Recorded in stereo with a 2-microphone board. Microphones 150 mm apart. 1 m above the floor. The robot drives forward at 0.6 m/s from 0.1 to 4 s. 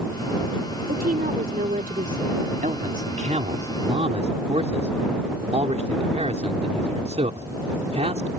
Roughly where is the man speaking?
Right.